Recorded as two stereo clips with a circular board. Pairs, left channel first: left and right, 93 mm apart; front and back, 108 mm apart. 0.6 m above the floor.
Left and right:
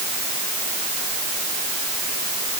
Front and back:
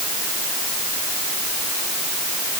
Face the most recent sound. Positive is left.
No sound to turn to.